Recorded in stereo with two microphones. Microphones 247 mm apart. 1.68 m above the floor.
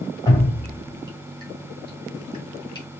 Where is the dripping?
20° left (ahead or behind), 2 m.